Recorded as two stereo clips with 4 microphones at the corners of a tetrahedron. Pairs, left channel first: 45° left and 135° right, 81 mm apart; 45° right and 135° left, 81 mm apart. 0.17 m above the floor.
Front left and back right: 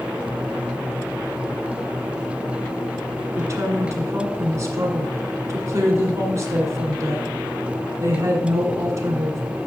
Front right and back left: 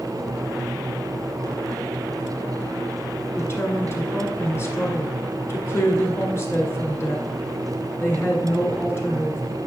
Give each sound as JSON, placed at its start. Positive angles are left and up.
{"t": 3.4, "sound": "a woman speaking", "azimuth_deg": -90, "distance_m": 1.8}